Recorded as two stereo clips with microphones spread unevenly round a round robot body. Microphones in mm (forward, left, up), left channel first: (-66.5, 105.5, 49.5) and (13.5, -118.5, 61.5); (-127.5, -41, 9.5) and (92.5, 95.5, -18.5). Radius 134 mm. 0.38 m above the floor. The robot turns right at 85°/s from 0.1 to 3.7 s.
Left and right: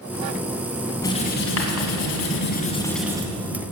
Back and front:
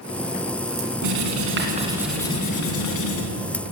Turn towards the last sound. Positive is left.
turn(degrees=-100)